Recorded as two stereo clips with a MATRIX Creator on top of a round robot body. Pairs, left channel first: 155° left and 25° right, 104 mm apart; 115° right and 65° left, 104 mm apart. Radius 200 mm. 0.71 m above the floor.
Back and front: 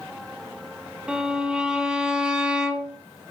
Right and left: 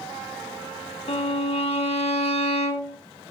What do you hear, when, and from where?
1.1 s a violin: 100° right, 2 m